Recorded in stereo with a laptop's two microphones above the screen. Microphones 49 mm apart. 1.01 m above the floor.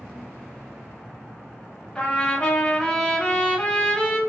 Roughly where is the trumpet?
Left.